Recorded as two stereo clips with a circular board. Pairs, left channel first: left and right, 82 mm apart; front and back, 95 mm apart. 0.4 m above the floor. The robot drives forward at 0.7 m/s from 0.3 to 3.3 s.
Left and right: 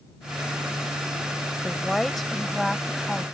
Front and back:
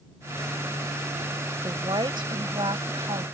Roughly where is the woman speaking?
Behind.